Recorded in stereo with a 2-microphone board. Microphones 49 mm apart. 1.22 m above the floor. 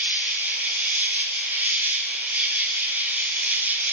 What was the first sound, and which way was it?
An insect, 35° right (ahead or behind).